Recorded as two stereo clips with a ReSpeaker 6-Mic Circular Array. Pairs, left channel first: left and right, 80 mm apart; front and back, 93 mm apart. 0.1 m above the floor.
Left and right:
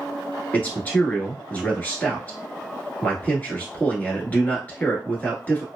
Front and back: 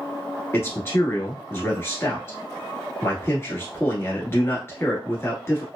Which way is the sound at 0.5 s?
40° left.